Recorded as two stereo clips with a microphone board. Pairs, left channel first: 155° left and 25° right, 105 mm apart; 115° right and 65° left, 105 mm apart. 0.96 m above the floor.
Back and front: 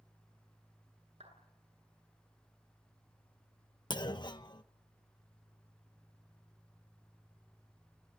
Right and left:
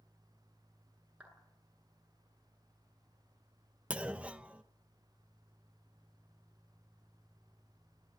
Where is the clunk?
140° left, 1.0 m.